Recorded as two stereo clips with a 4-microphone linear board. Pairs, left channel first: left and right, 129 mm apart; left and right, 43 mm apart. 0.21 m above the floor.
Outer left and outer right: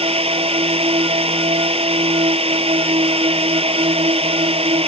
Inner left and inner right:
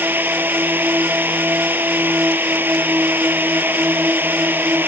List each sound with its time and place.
0.0 s a drone: 50° right (ahead or behind)